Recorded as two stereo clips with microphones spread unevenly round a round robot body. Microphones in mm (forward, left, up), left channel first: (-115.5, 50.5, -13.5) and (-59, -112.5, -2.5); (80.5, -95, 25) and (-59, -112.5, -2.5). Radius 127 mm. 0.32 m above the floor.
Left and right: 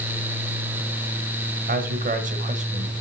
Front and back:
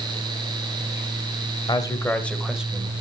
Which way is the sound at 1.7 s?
50° right.